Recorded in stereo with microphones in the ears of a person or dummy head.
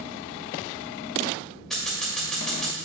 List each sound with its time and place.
1.7 s scissors: 5° left (ahead or behind), 2.5 m